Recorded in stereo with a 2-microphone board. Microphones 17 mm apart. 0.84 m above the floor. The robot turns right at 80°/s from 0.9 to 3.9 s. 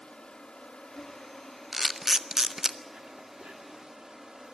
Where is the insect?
70° left, 3 m; by 4.5 s 50° right, 3 m.